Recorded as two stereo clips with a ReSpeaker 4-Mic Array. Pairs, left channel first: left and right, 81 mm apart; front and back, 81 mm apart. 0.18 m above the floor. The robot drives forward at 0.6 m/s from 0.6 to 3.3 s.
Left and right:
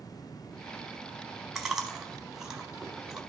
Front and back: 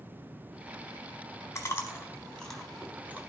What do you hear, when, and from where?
1.6 s chewing: 10° right, 1.1 m; by 3.2 s 165° right, 1.0 m